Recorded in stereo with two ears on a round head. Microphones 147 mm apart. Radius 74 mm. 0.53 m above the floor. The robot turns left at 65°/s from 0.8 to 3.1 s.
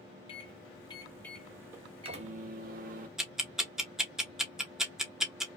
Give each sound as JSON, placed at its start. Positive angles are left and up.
{"t": 0.3, "sound": "a microwave", "azimuth_deg": 40, "distance_m": 1.0}
{"t": 3.2, "sound": "ticking", "side_deg": -5, "distance_m": 0.9}